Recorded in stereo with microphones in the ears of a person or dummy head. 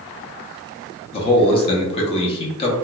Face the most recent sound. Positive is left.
turn(degrees=30)  # may be behind; listen again after turning